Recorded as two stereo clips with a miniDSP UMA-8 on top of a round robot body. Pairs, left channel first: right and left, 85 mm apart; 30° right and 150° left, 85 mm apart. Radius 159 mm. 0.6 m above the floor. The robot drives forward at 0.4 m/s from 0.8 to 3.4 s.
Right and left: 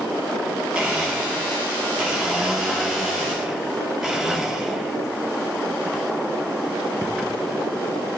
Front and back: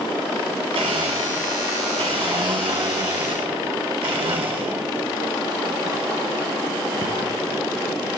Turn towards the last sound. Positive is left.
turn(degrees=175)